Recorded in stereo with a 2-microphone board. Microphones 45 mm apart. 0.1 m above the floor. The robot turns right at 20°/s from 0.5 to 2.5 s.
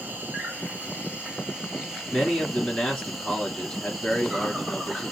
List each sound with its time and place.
0.0 s an insect: 45° right, 0.8 m; by 5.1 s 5° right, 0.8 m
2.1 s a man speaking: 20° left (ahead or behind), 1.5 m